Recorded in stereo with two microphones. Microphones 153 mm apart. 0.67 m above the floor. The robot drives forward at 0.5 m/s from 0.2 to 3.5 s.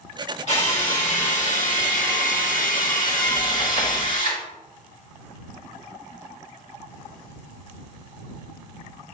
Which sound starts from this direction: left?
A drill, at 0.5 s.